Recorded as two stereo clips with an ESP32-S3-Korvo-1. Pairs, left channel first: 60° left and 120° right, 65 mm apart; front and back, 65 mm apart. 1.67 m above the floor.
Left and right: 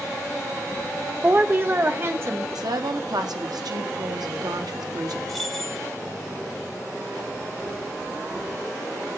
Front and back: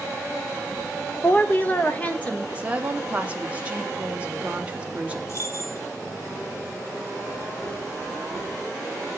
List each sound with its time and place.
1.2 s a woman speaking: 60° right, 0.6 m; by 2.5 s 70° right, 1.8 m
2.5 s a woman speaking: 110° right, 1.2 m
5.3 s keys jangling: 30° right, 1.2 m